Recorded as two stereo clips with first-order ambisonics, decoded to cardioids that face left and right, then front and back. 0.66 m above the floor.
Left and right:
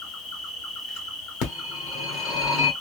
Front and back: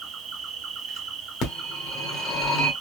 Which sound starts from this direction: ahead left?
A phone ringing, at 1.4 s.